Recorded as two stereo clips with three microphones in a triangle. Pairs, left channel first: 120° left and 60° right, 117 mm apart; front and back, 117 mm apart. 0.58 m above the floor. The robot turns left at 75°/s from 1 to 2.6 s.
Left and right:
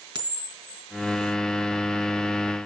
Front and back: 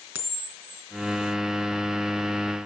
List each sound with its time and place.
0.1 s a camera shutter: 110° right, 3.5 m